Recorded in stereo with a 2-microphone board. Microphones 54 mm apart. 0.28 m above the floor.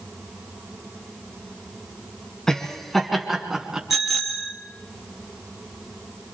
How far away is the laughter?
About 3 m.